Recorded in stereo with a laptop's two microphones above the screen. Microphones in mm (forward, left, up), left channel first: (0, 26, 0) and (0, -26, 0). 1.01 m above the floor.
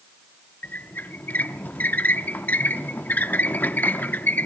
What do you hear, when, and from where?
0.6 s a squeak: 35° left (ahead or behind), 0.7 m